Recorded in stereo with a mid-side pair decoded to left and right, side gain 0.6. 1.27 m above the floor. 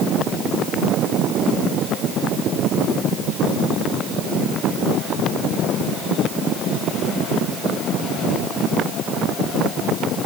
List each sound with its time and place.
Only background noise.